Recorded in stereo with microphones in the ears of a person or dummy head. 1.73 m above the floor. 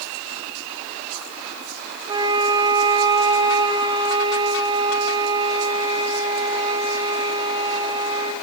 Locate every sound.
2.1 s a flute: 25° right (ahead or behind), 3 m